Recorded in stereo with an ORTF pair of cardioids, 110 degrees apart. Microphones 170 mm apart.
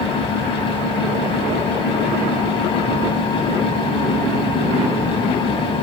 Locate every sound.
0.0 s a fan: 30° left, 0.8 m